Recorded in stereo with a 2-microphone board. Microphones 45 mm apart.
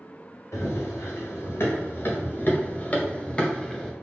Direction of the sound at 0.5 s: 80° left.